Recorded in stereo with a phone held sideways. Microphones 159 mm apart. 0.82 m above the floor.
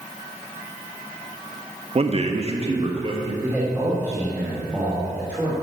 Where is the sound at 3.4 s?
15° right (ahead or behind), 2.5 m.